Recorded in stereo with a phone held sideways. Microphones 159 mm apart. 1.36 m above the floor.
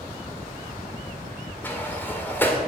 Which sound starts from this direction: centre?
A sliding door, at 1.6 s.